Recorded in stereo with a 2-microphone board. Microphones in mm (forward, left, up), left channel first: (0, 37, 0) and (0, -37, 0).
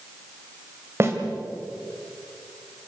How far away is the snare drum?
About 3 m.